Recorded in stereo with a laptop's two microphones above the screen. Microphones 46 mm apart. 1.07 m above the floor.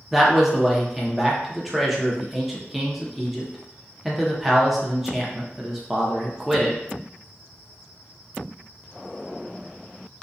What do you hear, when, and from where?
0.1 s a man speaking: 5° right (ahead or behind), 0.6 m